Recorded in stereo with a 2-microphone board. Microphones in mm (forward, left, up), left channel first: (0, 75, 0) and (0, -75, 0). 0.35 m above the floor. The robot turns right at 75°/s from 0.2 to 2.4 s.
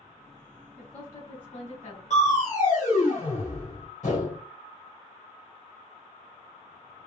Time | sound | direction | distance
0.8 | a woman speaking | 5° right | 1.8 m
2.1 | crushing | 55° left (ahead or behind) | 1.7 m